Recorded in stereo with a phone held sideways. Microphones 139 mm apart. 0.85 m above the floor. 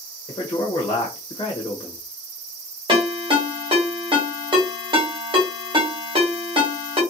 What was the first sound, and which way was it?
A man speaking, 25° left (ahead or behind).